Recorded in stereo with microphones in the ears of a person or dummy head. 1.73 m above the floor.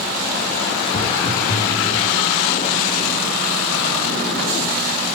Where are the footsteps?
45° left (ahead or behind), 4 m; by 2.0 s 55° left (ahead or behind), 5.5 m.